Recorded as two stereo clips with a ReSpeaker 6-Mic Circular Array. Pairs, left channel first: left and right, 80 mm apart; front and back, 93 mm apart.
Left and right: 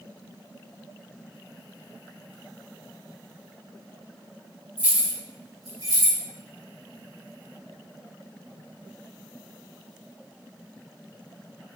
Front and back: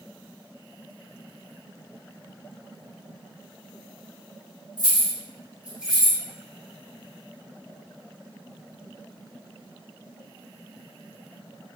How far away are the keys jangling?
About 1.5 m.